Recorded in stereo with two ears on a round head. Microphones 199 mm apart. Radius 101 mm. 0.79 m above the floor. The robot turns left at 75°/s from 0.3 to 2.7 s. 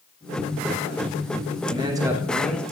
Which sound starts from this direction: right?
A man speaking, at 1.7 s.